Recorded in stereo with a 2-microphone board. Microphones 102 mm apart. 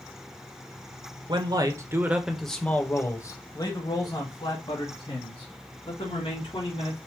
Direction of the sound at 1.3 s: 50° right (ahead or behind).